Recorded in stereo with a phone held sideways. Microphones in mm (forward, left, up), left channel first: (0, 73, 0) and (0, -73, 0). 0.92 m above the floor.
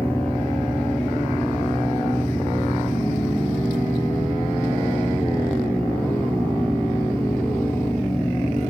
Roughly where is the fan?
Centre.